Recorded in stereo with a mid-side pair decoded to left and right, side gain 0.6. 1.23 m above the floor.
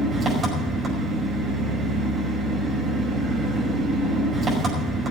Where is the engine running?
30° right, 5.5 m.